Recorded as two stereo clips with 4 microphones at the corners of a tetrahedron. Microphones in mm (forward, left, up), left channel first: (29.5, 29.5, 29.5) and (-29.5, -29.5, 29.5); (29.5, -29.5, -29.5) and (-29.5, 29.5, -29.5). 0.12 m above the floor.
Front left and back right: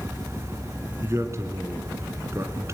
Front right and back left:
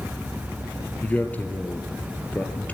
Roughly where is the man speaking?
Right.